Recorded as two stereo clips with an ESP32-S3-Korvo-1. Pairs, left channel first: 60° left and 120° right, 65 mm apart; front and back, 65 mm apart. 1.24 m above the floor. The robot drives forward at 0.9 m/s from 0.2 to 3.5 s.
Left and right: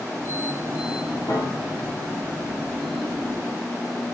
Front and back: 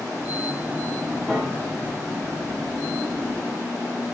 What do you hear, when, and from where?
1.3 s a piano: 80° left, 2.5 m; by 1.9 s 95° left, 2.5 m